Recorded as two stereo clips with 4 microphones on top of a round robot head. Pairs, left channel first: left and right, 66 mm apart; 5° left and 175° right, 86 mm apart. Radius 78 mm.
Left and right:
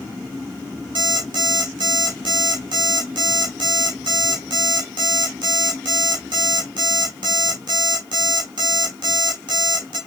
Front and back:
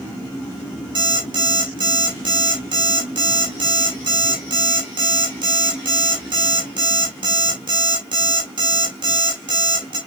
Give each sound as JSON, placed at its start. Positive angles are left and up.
{"t": 0.9, "sound": "an alarm clock", "azimuth_deg": -125, "distance_m": 1.2}